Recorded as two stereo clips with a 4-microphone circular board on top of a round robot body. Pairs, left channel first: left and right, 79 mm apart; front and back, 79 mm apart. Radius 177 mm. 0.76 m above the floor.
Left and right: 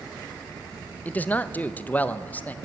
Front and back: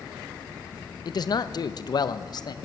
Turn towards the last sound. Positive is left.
turn(degrees=20)